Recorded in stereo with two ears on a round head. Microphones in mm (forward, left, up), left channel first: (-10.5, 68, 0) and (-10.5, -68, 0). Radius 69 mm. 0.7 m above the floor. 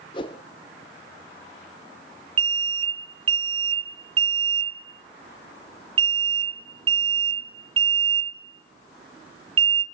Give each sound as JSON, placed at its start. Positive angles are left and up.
{"t": 0.1, "sound": "a whoosh", "side_deg": 30, "distance_m": 0.9}
{"t": 2.4, "sound": "an alarm", "side_deg": -35, "distance_m": 0.9}